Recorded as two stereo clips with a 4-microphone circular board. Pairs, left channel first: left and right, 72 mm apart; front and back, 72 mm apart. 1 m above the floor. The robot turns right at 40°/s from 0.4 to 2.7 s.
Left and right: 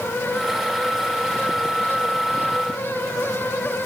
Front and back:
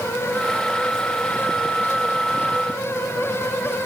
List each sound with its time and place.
Only background noise.